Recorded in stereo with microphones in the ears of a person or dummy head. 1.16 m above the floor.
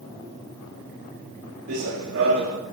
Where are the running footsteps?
60° right (ahead or behind), 4.5 m.